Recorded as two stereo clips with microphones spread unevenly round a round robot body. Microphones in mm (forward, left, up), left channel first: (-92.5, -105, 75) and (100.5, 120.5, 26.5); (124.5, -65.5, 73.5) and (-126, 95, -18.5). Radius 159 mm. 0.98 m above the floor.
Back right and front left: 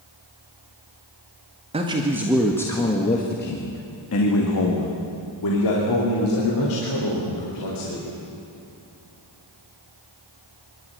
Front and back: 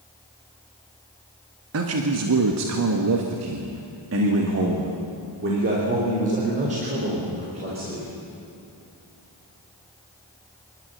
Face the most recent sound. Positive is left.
turn(degrees=-145)